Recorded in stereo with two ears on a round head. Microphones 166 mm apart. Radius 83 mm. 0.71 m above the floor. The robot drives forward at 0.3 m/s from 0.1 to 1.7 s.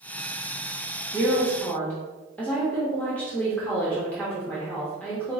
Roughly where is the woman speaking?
Centre.